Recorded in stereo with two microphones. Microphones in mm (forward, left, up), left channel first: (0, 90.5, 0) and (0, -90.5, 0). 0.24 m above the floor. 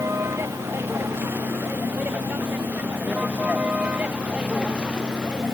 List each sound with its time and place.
0.0 s a vehicle: 15° right (ahead or behind); by 5.5 s 5° right (ahead or behind)